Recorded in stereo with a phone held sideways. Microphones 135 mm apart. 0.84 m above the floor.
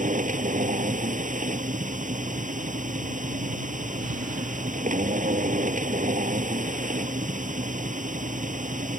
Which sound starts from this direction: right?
A machine running, at 0.0 s.